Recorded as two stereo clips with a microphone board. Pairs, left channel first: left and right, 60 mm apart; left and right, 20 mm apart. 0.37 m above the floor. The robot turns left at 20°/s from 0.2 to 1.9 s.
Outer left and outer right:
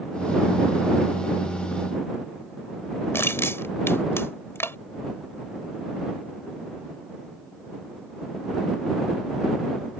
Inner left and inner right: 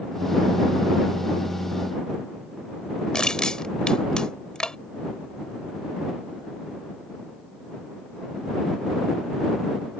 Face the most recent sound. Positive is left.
turn(degrees=45)  # may be behind; listen again after turning